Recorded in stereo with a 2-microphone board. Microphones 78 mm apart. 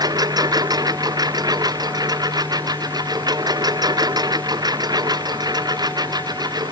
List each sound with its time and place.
0.0 s a lawn mower: 55° right (ahead or behind); by 6.7 s 60° right (ahead or behind)